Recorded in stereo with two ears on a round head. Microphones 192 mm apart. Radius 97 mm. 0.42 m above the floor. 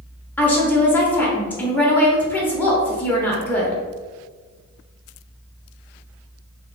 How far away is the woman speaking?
About 0.8 m.